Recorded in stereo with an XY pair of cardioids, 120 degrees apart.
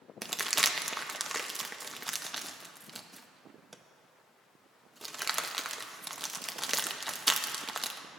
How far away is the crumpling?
About 0.5 m.